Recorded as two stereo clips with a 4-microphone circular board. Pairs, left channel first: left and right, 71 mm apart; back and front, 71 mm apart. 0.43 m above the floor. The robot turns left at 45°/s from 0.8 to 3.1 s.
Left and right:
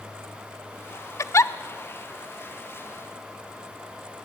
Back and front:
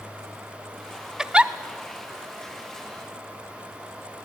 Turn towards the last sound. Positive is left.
turn(degrees=-5)